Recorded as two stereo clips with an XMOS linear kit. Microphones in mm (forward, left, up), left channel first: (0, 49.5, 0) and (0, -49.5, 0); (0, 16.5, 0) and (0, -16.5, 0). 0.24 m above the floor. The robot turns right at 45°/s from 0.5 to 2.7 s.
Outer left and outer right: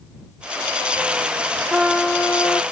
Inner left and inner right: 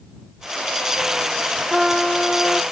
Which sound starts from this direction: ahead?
A trumpet, at 1.7 s.